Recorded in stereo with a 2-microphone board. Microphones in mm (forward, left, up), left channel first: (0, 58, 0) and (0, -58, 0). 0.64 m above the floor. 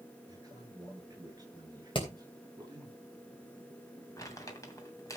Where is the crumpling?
25° left (ahead or behind), 2.5 m.